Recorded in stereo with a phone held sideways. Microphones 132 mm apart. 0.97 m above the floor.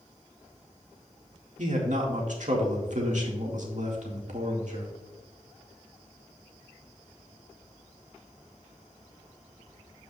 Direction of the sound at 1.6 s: 65° right (ahead or behind).